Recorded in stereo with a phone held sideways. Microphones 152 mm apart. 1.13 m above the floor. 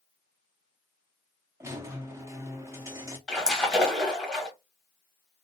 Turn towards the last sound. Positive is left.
turn(degrees=5)  # may be behind; listen again after turning